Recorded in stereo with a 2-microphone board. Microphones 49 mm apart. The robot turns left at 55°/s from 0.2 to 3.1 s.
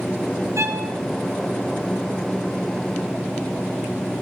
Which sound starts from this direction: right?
A violin, at 0.6 s.